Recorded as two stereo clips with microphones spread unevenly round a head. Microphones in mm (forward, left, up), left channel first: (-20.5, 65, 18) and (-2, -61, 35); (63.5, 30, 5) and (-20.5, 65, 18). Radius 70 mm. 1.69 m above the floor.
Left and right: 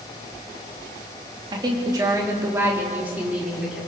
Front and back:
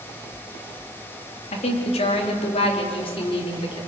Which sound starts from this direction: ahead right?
A woman speaking, at 1.5 s.